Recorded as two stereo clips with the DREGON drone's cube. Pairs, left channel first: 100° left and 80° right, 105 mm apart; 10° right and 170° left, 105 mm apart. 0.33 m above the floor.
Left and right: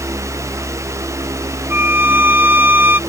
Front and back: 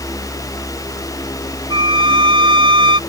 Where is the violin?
150° right.